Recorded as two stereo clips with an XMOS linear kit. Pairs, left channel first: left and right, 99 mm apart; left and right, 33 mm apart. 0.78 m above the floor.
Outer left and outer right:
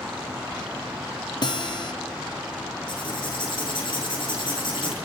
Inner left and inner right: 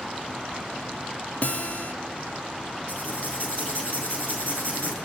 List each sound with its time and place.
1.4 s a guitar: 45° left (ahead or behind), 1.3 m
2.9 s writing: 55° left (ahead or behind), 8 m